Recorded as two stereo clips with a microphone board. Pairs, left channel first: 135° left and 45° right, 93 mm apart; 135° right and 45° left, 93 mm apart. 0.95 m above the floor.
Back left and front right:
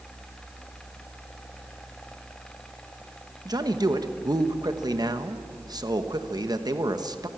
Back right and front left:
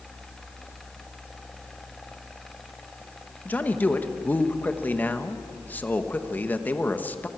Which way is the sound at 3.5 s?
70° right.